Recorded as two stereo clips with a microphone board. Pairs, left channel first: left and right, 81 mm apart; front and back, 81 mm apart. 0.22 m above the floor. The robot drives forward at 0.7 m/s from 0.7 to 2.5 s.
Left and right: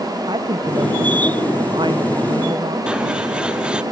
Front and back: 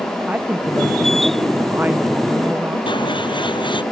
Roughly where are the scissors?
Ahead.